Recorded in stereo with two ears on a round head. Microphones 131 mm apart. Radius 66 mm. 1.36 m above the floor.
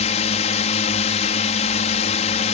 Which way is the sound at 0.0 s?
50° left (ahead or behind).